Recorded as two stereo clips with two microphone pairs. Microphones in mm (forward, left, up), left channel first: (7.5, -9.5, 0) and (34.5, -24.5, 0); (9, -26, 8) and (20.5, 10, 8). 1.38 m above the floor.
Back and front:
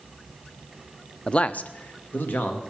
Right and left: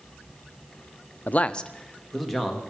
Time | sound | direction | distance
1.3 | a man speaking | 140° right | 0.6 m